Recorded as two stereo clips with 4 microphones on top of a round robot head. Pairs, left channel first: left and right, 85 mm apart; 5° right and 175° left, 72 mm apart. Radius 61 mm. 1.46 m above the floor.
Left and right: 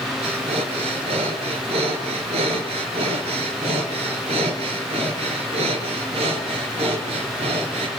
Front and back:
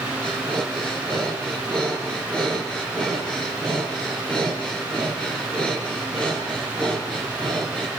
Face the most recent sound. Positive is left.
turn(degrees=-90)